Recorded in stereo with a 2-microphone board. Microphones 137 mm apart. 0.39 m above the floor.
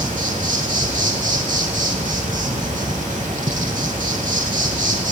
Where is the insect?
65° right (ahead or behind), 0.8 m.